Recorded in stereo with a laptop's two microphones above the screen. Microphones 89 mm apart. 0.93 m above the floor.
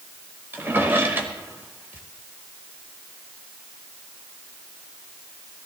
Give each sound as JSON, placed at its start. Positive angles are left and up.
{"t": 0.5, "sound": "a drawer", "side_deg": -25, "distance_m": 2.0}